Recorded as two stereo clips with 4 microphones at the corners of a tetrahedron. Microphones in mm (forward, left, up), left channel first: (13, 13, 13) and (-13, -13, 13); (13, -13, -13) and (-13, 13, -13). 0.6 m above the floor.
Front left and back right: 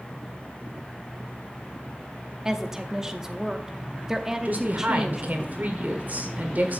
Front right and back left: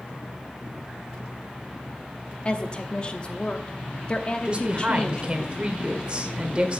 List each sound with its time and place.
2.5 s a woman speaking: 70° right, 0.8 m
4.5 s a woman speaking: 170° right, 1.7 m